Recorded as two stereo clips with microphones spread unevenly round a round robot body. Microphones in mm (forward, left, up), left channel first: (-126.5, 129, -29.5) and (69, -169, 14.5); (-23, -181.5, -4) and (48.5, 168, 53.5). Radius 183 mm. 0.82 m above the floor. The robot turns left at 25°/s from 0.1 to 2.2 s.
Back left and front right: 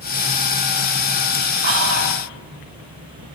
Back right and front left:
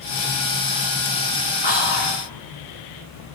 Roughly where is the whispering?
Ahead right.